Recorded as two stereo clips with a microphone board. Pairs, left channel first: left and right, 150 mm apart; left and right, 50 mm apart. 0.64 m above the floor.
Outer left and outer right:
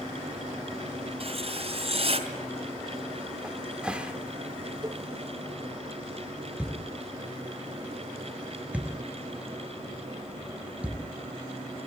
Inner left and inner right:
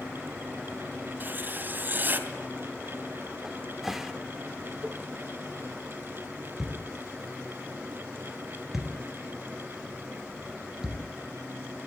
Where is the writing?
45° right (ahead or behind), 3 m.